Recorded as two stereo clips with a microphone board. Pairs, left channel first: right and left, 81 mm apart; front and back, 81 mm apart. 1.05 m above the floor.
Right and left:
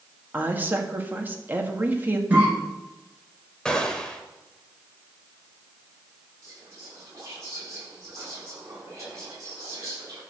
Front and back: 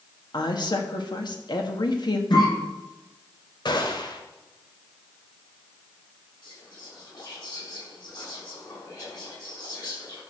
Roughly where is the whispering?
Ahead left.